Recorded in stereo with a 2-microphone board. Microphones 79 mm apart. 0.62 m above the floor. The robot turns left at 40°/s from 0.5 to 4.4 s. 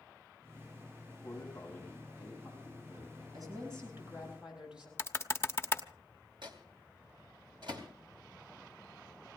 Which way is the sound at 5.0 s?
30° left (ahead or behind).